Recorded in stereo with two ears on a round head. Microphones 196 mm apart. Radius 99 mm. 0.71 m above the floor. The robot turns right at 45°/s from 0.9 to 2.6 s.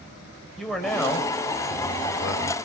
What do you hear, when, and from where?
0.6 s a man speaking: straight ahead, 4 m; by 2.5 s 75° left, 4 m